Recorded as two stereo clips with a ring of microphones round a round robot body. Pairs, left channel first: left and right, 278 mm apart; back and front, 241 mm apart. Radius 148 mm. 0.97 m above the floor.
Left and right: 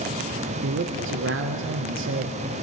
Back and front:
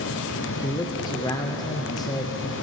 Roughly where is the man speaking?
Right.